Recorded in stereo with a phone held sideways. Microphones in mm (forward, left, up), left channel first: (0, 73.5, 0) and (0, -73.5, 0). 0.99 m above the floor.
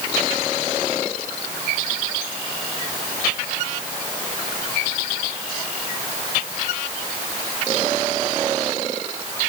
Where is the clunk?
I don't hear a clunk.